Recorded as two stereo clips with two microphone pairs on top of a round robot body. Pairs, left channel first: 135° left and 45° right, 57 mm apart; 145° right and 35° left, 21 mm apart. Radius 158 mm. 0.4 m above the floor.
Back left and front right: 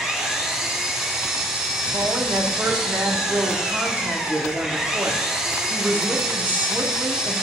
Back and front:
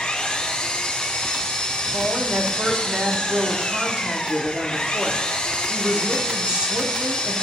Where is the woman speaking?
15° left, 1.5 m.